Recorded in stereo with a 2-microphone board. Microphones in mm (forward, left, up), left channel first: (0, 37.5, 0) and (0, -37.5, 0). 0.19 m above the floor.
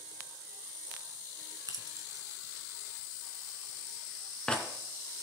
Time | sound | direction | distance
1.7 | keys jangling | 50° right (ahead or behind) | 1.2 m